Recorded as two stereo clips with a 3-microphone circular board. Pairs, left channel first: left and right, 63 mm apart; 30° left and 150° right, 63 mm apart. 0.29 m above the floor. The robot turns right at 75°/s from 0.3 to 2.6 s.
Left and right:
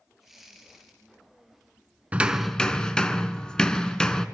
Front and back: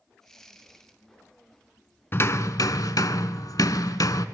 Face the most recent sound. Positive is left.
turn(degrees=15)